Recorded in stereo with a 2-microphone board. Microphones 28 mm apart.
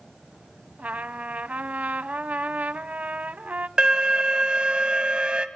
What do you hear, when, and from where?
0.8 s a trumpet: 60° right (ahead or behind), 0.8 m
3.8 s an alarm: 25° right (ahead or behind), 1.7 m